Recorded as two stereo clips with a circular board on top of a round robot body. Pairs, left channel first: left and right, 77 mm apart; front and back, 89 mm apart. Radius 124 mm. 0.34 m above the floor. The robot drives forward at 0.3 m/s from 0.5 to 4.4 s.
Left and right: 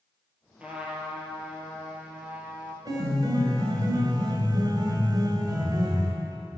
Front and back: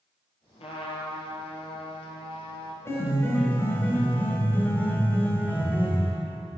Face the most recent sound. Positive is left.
turn(degrees=-70)